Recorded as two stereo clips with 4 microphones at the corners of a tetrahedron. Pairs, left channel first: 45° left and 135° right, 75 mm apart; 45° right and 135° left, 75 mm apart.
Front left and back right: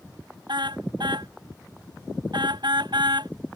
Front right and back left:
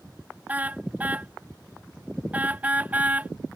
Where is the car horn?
155° right.